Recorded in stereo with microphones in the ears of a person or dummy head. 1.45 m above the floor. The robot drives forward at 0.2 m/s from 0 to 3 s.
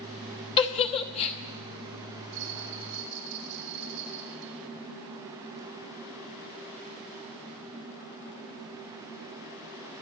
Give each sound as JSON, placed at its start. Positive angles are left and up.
{"t": 0.6, "sound": "a giggle", "side_deg": 25, "distance_m": 1.0}
{"t": 2.3, "sound": "a bell", "side_deg": -55, "distance_m": 2.0}